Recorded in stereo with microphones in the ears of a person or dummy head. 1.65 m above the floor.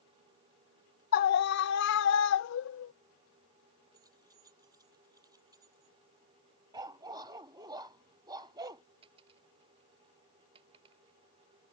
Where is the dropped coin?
30° right (ahead or behind).